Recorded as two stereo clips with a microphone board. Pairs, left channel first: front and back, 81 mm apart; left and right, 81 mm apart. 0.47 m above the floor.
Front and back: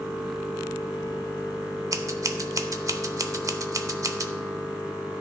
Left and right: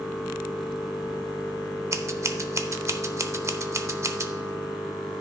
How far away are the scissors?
About 0.5 m.